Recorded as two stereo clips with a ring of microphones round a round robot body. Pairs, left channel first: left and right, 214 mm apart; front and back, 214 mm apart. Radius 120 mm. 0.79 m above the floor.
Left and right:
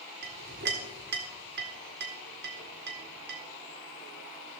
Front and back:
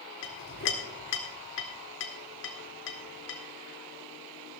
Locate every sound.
0.2 s a clink: 40° right, 1.7 m